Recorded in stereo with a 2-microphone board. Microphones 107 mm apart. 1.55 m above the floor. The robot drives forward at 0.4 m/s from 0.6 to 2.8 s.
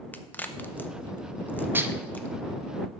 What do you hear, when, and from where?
0.1 s a crack: 15° left (ahead or behind), 0.6 m
1.7 s dishes clattering: 20° right (ahead or behind), 0.5 m